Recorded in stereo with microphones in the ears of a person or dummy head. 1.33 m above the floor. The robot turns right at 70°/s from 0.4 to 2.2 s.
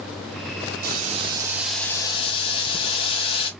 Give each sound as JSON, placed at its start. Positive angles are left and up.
{"t": 0.8, "sound": "boiling", "azimuth_deg": -60, "distance_m": 1.2}